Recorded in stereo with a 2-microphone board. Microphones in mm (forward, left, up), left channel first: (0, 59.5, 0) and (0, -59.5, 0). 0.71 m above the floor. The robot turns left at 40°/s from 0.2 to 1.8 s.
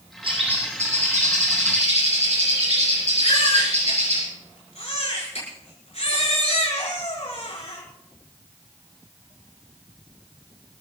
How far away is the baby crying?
About 6 m.